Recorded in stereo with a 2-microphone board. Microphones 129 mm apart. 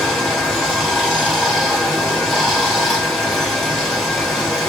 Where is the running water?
Centre (ahead or behind), 1.7 m.